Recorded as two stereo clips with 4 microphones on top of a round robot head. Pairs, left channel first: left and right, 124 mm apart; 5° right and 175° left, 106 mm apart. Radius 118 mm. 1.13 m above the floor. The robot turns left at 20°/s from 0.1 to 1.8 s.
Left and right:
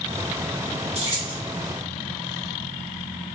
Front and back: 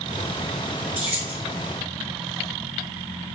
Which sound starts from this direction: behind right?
Keys jangling, at 0.9 s.